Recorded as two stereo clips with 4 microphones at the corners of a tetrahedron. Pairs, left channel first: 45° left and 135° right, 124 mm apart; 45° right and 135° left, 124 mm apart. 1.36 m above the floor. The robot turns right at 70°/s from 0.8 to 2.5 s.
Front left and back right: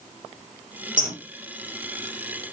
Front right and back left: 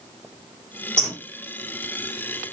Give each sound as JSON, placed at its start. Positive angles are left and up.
{"t": 1.0, "sound": "a bird", "azimuth_deg": -130, "distance_m": 3.0}